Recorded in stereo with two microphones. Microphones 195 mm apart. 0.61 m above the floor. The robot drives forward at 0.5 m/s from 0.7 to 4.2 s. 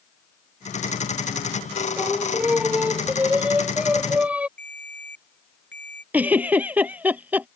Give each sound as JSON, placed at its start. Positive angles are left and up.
{"t": 2.0, "sound": "singing", "side_deg": -5}
{"t": 4.6, "sound": "a ringtone", "side_deg": 65}
{"t": 6.1, "sound": "a giggle", "side_deg": -10}